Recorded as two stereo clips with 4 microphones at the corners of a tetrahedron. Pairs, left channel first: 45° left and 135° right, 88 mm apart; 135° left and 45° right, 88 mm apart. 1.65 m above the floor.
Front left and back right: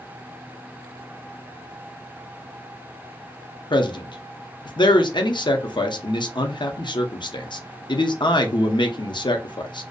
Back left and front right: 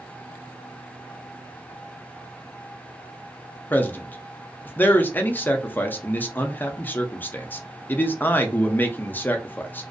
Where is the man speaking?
65° left, 0.5 m.